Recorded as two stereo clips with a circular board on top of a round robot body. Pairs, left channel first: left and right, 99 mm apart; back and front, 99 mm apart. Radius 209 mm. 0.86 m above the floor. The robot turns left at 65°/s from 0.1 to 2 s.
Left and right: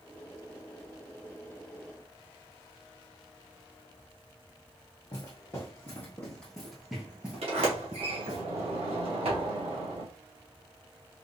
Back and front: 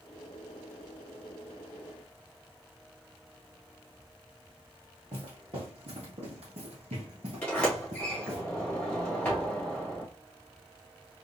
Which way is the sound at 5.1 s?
40° left.